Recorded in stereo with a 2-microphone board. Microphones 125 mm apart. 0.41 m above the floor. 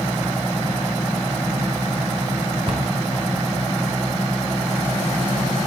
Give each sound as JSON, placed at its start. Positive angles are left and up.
{"t": 2.7, "sound": "a cupboard door", "side_deg": -45, "distance_m": 1.0}